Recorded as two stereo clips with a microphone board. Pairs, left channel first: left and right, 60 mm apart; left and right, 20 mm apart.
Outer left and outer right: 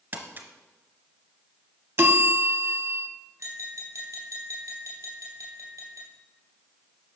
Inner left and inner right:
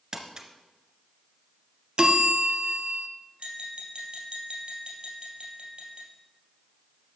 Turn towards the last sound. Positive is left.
turn(degrees=-60)  # may be behind; listen again after turning